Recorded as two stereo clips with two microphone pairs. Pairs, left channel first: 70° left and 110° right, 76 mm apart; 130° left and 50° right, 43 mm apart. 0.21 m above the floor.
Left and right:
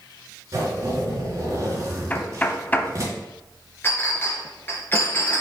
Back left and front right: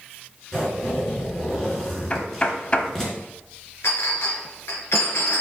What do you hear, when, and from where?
0.5 s a zipper: 150° right, 3 m
2.1 s knocking: 115° left, 0.8 m
3.8 s a clink: 130° left, 2 m